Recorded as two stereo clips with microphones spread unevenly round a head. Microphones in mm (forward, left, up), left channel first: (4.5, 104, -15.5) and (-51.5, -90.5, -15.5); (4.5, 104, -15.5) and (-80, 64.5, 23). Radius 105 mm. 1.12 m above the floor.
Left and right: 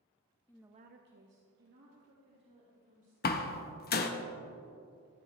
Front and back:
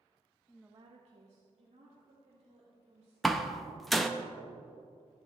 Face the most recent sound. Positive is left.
turn(degrees=120)